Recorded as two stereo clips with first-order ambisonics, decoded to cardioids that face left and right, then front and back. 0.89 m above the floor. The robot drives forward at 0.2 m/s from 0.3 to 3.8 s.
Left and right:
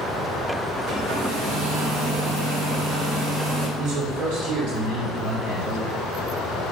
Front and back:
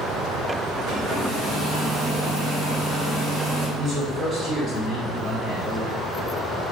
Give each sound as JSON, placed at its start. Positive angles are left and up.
{"t": 0.9, "sound": "a hair dryer", "azimuth_deg": -125, "distance_m": 2.5}
{"t": 3.8, "sound": "a man speaking", "azimuth_deg": -120, "distance_m": 2.5}